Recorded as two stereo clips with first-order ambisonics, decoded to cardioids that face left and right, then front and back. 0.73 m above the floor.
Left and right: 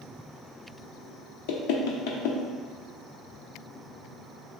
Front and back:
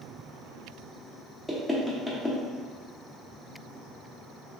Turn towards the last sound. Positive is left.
turn(degrees=90)